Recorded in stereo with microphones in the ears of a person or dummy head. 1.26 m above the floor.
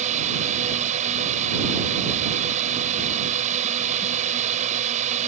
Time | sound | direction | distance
0.0 | a drone | 35° right (ahead or behind) | ?